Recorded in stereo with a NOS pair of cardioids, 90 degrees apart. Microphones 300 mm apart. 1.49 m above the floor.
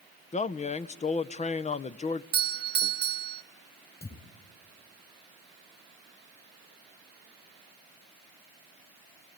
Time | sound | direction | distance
0.3 | a man speaking | 25° left | 0.7 m
2.3 | a doorbell | 35° right | 0.7 m
4.0 | a thud | 30° left | 4 m